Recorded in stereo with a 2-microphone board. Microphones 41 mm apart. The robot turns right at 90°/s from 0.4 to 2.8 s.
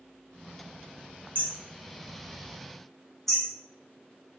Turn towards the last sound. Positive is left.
turn(degrees=10)  # may be behind; listen again after turning